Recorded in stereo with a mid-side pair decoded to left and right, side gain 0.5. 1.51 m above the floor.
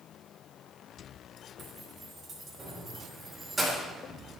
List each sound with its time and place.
1.6 s keys jangling: 50° right, 3 m; by 3.9 s 25° right, 3 m